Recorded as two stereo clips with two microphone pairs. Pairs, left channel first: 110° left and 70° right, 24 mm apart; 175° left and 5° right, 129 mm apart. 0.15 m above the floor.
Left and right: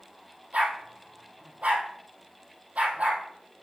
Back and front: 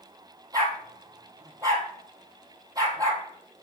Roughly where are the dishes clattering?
I don't hear dishes clattering.